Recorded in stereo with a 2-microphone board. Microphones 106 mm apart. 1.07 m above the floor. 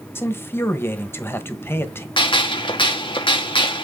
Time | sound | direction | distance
0.1 | a man speaking | 20° left (ahead or behind) | 1.2 m
2.2 | a gunshot | 50° left (ahead or behind) | 1.2 m